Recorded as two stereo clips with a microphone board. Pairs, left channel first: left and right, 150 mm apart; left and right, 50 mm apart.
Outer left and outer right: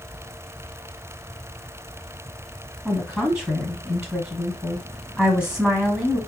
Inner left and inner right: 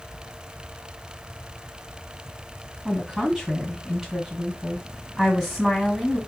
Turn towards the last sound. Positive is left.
turn(degrees=-5)  # may be behind; listen again after turning